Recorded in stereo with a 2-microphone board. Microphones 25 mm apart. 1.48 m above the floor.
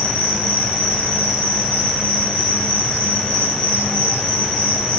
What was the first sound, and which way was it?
An insect, 45° left (ahead or behind).